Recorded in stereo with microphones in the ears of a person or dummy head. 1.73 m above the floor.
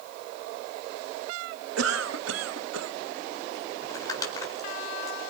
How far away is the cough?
About 1.2 m.